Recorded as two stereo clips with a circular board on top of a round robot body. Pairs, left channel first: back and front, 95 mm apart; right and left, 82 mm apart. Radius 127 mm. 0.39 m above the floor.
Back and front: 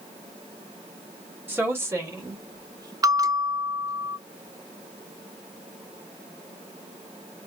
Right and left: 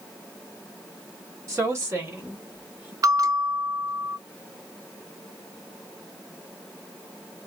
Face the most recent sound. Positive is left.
turn(degrees=50)